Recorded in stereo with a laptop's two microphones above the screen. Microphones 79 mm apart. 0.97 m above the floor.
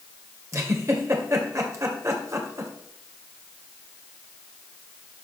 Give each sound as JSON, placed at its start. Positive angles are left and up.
{"t": 0.5, "sound": "a giggle", "side_deg": -40, "distance_m": 2.0}